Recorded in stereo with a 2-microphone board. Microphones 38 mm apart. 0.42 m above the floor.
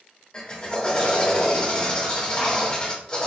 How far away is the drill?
About 1.1 m.